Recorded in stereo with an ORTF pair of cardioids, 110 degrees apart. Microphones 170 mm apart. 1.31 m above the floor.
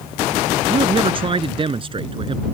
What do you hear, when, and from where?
0.7 s a man speaking: 30° right